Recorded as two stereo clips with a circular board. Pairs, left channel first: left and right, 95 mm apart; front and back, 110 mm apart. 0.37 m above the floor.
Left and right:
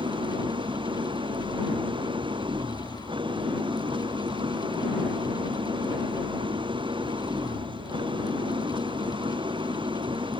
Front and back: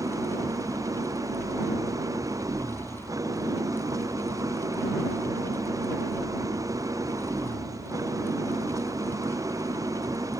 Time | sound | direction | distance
0.0 | an engine running | 120° right | ?